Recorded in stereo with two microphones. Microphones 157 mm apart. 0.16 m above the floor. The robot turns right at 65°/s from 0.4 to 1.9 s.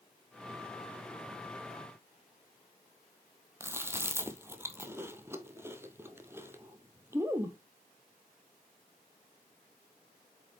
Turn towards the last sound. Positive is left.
turn(degrees=-15)  # may be behind; listen again after turning